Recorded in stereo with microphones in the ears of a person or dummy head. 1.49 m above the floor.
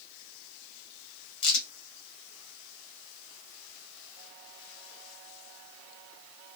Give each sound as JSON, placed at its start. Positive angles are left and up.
{"t": 1.4, "sound": "a crack", "side_deg": 60, "distance_m": 1.3}